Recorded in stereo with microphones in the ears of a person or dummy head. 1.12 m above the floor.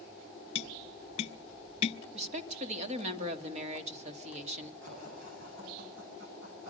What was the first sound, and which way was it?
Tapping, 35° left (ahead or behind).